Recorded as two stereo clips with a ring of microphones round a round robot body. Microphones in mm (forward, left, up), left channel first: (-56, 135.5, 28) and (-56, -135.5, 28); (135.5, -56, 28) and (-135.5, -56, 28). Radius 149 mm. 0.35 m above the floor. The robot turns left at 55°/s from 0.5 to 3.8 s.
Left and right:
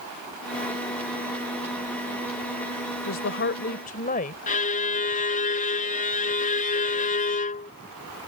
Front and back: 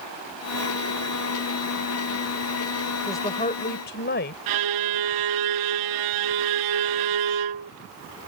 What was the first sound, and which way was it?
A woman speaking, 80° left.